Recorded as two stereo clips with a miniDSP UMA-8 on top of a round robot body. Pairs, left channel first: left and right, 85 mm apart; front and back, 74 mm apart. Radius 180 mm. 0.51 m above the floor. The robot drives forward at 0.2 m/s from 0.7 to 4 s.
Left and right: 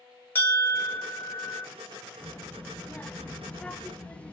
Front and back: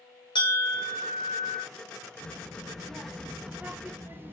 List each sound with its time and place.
0.3 s a bell: 20° left, 0.8 m; by 1.6 s 25° left, 0.6 m
2.2 s a child speaking: 35° left, 0.6 m; by 4.3 s 150° left, 0.6 m